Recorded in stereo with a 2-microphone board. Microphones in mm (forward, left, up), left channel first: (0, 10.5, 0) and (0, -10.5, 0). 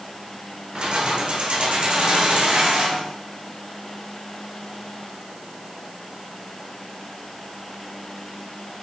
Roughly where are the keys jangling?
Right.